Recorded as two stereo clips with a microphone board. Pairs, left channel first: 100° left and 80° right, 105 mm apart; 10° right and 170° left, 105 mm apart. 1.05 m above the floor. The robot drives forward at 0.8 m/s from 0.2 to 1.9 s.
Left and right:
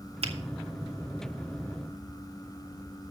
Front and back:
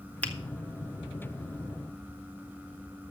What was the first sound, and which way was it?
A finger snap, 90° right.